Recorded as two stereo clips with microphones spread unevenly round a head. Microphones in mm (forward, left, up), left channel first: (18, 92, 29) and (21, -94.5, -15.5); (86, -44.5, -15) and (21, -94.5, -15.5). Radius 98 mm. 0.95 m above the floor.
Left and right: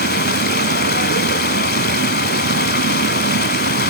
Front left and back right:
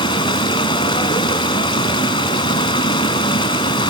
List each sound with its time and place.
0.0 s running water: 65° left, 1.8 m